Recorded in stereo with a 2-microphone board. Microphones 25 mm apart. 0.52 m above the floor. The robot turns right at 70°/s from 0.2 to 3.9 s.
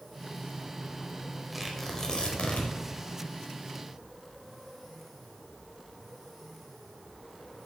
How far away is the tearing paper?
About 2 m.